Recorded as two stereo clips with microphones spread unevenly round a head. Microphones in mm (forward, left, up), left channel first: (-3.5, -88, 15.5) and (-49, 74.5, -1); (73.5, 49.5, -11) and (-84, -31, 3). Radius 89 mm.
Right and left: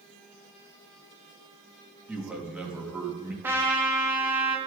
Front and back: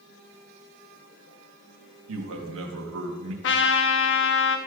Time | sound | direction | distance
2.1 | a man speaking | 170° right | 1.7 m
3.4 | a trumpet | 25° left | 0.9 m